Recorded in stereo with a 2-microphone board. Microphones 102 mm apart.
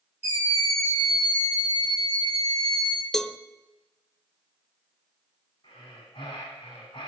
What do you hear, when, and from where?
0.2 s a scream: 65° left (ahead or behind), 6 m; by 3.0 s 50° left (ahead or behind), 4.5 m
3.1 s a cowbell: 5° left (ahead or behind), 0.6 m
5.6 s breathing: 55° left (ahead or behind), 6 m